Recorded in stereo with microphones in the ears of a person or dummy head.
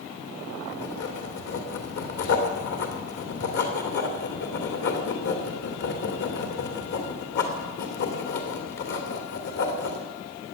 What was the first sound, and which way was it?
Writing, 55° left (ahead or behind).